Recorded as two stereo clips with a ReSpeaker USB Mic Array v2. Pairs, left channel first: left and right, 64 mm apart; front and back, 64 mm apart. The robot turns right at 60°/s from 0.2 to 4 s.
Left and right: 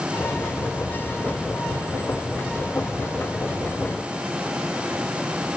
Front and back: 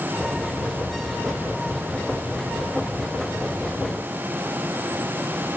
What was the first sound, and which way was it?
Only background noise.